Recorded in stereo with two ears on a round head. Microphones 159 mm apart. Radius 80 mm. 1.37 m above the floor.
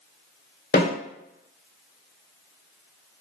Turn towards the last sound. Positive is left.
turn(degrees=55)  # may be behind; listen again after turning